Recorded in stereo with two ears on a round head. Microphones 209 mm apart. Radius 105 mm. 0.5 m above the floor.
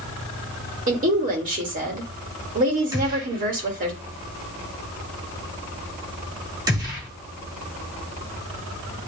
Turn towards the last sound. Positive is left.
turn(degrees=-15)  # may be behind; listen again after turning